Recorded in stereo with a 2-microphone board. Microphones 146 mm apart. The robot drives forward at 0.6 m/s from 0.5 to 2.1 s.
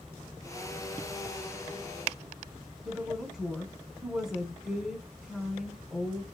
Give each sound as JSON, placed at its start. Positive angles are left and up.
{"t": 2.9, "sound": "a woman speaking", "side_deg": -5, "distance_m": 0.7}